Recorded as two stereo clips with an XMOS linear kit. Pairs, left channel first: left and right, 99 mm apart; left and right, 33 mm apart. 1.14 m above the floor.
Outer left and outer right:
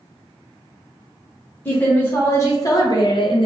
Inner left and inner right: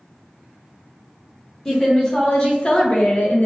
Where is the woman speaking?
15° left (ahead or behind), 1.5 m; by 3.5 s 60° left (ahead or behind), 0.7 m.